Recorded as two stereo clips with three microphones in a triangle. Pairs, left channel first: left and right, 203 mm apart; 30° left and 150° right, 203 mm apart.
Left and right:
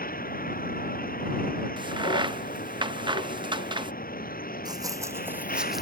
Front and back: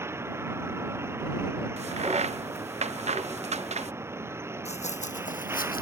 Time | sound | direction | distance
0.0 | a vehicle | 135° left | ?
1.8 | a crack | 135° right | ?
4.7 | running footsteps | 25° right | ?